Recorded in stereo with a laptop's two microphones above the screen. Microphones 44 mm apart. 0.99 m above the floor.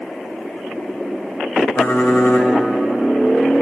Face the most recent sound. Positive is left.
turn(degrees=60)  # may be behind; listen again after turning